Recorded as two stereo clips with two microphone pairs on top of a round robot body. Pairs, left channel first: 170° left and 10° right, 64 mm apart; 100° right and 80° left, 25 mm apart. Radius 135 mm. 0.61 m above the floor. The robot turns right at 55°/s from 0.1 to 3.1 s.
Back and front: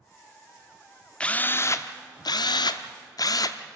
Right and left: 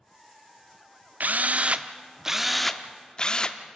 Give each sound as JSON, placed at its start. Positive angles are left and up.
{"t": 1.2, "sound": "a drill", "azimuth_deg": 90, "distance_m": 0.7}